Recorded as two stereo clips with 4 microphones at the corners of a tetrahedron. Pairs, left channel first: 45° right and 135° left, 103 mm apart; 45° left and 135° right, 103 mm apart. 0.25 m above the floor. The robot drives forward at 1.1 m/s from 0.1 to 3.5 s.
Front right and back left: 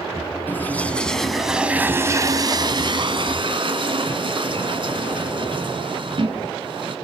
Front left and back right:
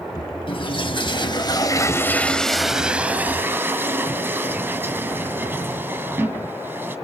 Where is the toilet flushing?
25° left, 2 m; by 7.0 s 155° left, 2 m.